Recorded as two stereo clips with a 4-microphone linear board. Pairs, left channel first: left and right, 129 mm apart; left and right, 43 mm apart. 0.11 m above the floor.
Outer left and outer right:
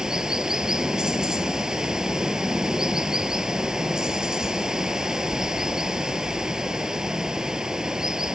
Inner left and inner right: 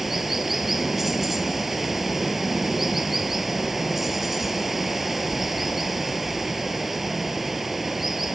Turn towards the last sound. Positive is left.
turn(degrees=-5)  # may be behind; listen again after turning